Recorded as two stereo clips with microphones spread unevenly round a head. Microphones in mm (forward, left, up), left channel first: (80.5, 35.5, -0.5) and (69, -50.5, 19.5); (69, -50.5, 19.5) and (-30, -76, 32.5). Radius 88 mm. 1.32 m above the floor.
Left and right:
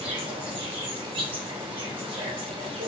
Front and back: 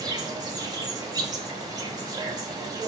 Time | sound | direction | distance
0.0 | an insect | 120° right | 1.4 m